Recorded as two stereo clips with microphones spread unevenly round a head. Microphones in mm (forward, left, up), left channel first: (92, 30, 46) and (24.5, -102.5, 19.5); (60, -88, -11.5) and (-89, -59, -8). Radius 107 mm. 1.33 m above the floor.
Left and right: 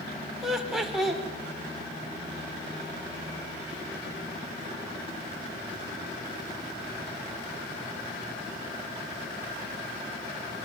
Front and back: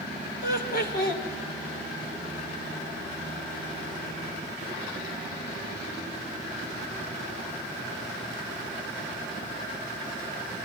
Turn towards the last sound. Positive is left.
turn(degrees=-30)